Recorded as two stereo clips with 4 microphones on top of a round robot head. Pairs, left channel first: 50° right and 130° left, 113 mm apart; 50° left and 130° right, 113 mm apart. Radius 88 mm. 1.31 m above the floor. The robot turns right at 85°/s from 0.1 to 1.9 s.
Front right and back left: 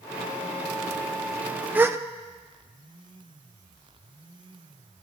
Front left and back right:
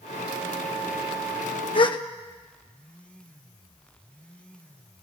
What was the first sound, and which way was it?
A gasp, 60° left.